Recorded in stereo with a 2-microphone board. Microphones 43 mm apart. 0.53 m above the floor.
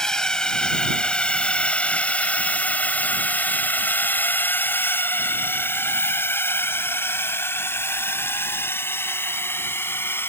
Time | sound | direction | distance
0.0 | a drone | 15° left (ahead or behind) | ?